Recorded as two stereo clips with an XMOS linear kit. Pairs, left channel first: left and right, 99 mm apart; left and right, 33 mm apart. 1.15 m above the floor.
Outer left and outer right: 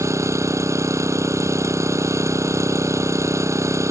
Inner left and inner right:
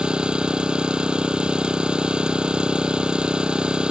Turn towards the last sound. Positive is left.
turn(degrees=-30)  # may be behind; listen again after turning